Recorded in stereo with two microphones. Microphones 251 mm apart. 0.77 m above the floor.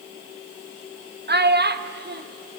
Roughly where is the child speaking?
Right.